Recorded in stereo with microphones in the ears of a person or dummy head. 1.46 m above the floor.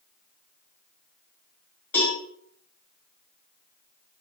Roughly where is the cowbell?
Centre.